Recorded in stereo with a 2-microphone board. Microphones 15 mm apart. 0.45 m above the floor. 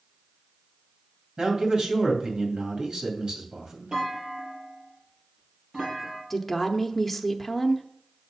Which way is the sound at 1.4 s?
55° right (ahead or behind).